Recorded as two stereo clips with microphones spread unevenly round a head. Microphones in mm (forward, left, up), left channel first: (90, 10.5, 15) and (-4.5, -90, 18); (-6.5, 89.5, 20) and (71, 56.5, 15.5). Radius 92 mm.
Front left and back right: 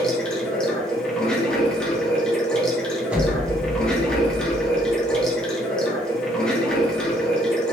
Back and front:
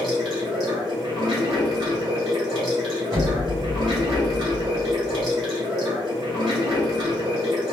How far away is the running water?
About 1.2 m.